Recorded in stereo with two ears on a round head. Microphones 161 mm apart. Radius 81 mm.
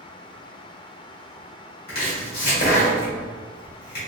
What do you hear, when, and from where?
1.9 s chopping: 50° left (ahead or behind), 1.8 m